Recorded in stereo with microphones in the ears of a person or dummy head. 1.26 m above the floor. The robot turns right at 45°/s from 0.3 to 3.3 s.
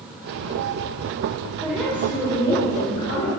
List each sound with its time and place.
1.6 s a woman speaking: 5° right, 4.5 m; by 3.3 s 70° left, 4.5 m